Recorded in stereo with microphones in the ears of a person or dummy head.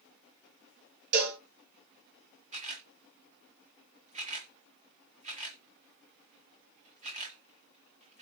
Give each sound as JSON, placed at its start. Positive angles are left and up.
{"t": 1.1, "sound": "a cowbell", "side_deg": -55, "distance_m": 1.7}
{"t": 2.5, "sound": "a camera shutter", "side_deg": -40, "distance_m": 1.2}